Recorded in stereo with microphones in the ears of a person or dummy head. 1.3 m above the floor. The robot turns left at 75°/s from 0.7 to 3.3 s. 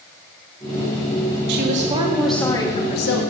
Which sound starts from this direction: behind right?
A woman speaking, at 1.5 s.